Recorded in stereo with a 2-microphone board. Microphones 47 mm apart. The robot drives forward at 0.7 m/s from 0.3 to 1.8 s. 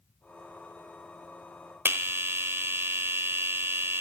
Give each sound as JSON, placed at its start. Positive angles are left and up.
{"t": 1.9, "sound": "a bell", "side_deg": -55, "distance_m": 1.6}